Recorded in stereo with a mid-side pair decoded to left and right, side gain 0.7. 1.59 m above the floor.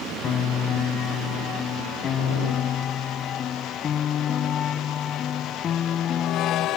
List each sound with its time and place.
0.2 s a piano: 35° left